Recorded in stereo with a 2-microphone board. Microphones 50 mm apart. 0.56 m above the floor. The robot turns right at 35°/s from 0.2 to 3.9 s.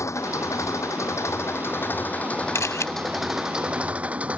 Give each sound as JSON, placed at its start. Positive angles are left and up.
{"t": 0.0, "sound": "an engine running", "azimuth_deg": 75}
{"t": 2.5, "sound": "a camera shutter", "side_deg": 70}